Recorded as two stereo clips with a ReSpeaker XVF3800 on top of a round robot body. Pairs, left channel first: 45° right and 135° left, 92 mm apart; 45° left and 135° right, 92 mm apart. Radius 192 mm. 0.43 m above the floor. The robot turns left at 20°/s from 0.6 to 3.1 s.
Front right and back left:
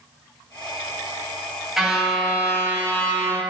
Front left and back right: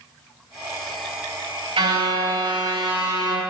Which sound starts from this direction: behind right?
A car horn, at 1.8 s.